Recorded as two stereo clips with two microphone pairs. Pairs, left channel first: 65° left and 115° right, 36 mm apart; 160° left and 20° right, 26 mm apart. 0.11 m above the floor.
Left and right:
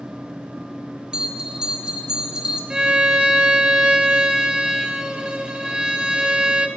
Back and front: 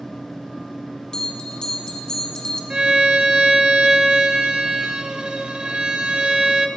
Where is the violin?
55° right, 1.3 m.